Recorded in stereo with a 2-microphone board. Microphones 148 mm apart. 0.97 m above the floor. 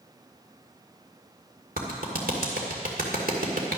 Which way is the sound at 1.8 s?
85° right.